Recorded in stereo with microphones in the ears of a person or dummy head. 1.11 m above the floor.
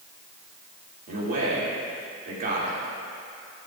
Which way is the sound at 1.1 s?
50° right (ahead or behind).